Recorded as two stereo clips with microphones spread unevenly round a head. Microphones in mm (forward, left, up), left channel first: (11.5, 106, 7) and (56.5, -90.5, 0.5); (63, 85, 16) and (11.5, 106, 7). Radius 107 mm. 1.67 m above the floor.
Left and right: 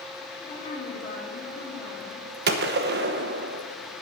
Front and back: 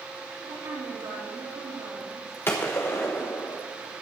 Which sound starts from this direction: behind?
A woman speaking, at 0.4 s.